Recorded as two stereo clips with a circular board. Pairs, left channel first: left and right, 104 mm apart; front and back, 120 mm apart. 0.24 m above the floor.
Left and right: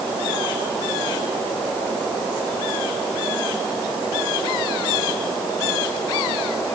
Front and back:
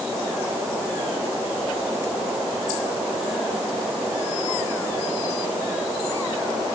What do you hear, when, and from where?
Only background noise.